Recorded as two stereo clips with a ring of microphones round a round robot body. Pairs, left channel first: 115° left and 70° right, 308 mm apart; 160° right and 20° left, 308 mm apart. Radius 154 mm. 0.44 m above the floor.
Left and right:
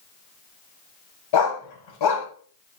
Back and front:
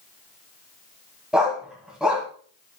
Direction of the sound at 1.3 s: 110° left.